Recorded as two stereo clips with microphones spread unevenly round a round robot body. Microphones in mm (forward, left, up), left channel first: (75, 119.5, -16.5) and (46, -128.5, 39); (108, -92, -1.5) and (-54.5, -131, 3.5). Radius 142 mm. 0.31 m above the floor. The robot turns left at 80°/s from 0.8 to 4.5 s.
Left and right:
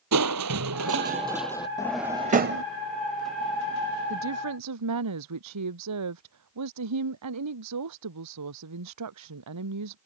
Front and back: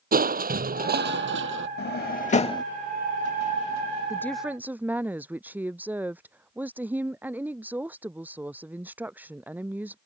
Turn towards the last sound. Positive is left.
turn(degrees=-85)